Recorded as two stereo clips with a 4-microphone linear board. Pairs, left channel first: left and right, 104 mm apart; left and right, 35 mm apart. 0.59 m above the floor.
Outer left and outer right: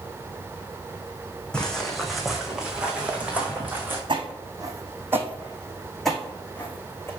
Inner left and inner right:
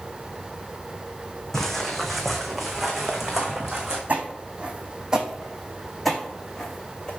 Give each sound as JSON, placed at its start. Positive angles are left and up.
{"t": 1.5, "sound": "footsteps", "side_deg": 10, "distance_m": 2.0}
{"t": 4.1, "sound": "footsteps", "side_deg": -50, "distance_m": 2.5}